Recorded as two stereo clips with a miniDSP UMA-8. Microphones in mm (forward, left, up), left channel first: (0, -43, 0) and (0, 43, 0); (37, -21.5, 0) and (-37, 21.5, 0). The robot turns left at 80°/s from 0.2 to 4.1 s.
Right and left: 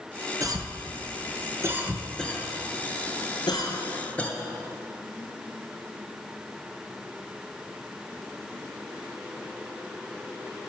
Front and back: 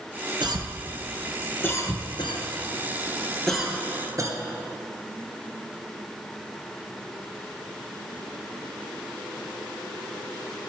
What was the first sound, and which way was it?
A cough, 130° left.